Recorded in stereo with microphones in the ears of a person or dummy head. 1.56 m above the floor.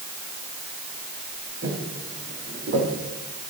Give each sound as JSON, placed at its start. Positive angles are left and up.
{"t": 1.6, "sound": "footsteps", "side_deg": -50, "distance_m": 5.5}